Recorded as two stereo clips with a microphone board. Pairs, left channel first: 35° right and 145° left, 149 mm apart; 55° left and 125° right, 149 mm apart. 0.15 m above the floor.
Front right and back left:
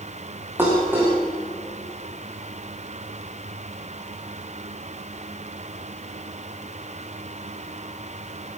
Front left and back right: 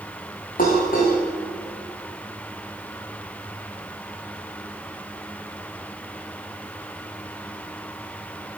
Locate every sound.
0.6 s dishes clattering: 70° left, 7 m